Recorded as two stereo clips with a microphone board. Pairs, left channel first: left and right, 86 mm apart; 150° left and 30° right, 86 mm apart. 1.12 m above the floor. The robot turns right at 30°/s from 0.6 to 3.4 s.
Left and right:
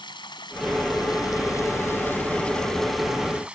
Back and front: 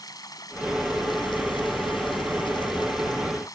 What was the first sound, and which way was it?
Running water, 110° left.